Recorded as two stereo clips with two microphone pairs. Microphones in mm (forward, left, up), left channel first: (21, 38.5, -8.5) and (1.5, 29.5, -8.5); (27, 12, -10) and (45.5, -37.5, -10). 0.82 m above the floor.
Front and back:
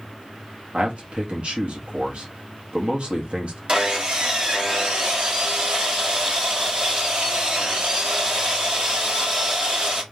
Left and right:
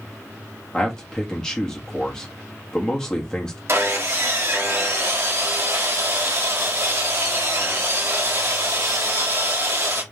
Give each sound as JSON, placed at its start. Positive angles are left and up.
{"t": 0.7, "sound": "a man speaking", "azimuth_deg": -175, "distance_m": 1.2}
{"t": 3.7, "sound": "sawing", "azimuth_deg": -105, "distance_m": 1.6}